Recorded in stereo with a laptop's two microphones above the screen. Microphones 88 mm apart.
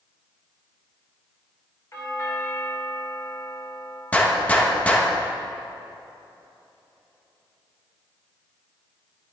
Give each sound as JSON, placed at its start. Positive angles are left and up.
{"t": 1.9, "sound": "a doorbell", "side_deg": 35, "distance_m": 1.8}
{"t": 4.1, "sound": "a gunshot", "side_deg": 15, "distance_m": 1.2}